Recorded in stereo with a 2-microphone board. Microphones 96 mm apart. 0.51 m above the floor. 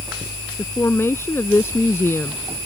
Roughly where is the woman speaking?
Left.